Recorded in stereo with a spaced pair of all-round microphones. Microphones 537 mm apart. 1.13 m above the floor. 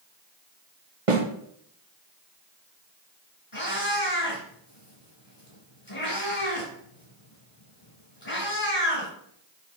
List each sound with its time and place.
1.1 s a snare drum: 70° right (ahead or behind), 1.2 m
3.5 s a cat meowing: 70° left (ahead or behind), 3.5 m